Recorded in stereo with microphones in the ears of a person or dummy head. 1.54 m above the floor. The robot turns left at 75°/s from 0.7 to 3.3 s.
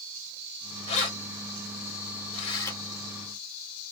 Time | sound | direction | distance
0.9 | keys jangling | 25° left (ahead or behind) | 1.0 m